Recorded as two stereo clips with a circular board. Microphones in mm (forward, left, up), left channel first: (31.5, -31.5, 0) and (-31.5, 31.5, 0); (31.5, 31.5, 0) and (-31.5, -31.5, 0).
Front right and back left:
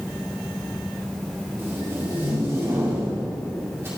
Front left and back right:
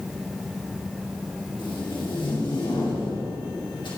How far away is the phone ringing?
No phone ringing in this recording.